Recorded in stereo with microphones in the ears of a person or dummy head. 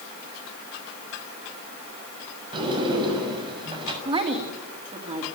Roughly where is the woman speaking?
Right.